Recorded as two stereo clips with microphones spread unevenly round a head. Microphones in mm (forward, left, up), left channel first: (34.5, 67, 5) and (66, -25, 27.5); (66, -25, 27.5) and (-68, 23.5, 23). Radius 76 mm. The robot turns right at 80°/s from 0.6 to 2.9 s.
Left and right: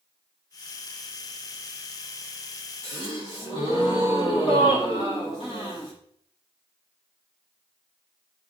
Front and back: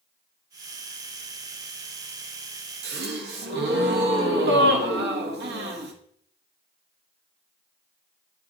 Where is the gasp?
170° left, 1.0 m; by 5.9 s 175° left, 1.0 m.